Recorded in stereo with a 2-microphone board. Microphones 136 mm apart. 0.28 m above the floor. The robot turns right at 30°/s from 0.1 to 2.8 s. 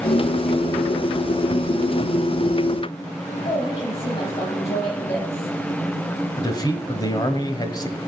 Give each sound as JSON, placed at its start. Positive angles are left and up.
{"t": 3.5, "sound": "a woman speaking", "side_deg": 45, "distance_m": 7.0}
{"t": 6.4, "sound": "a man speaking", "side_deg": 30, "distance_m": 1.5}